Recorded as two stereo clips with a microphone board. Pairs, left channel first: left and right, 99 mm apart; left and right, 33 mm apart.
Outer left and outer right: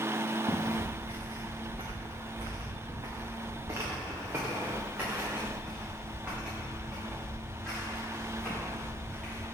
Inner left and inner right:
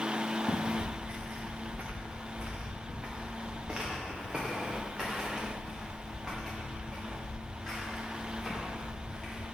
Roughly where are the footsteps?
Right.